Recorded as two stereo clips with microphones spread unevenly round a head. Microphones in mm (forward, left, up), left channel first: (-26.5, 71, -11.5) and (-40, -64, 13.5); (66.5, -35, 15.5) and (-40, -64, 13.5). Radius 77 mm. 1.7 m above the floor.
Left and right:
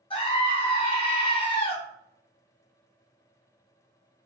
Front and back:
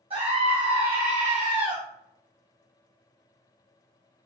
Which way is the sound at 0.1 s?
140° left.